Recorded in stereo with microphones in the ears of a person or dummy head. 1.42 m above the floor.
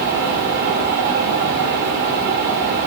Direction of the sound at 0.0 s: 45° right (ahead or behind).